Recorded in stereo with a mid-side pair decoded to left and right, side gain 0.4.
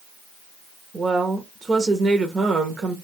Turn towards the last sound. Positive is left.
turn(degrees=-40)